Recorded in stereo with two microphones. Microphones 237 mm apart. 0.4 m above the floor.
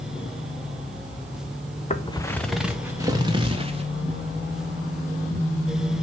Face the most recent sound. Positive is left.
turn(degrees=-25)  # may be behind; listen again after turning